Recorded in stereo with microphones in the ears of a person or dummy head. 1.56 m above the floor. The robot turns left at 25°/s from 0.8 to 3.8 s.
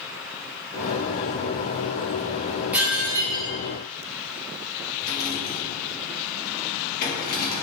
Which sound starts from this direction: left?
A rattle, at 5.0 s.